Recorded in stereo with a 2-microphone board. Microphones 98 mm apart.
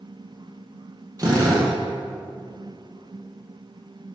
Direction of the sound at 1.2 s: 35° right (ahead or behind).